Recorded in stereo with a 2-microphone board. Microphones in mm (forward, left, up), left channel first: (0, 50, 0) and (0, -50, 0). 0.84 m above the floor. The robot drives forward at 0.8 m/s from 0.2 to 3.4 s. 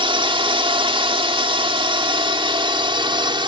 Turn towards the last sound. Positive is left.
turn(degrees=-55)  # may be behind; listen again after turning